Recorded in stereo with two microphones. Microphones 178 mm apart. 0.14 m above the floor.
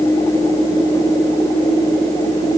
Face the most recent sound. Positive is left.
No sound to turn to.